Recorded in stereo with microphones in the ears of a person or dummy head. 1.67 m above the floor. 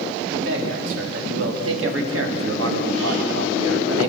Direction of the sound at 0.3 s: 80° right.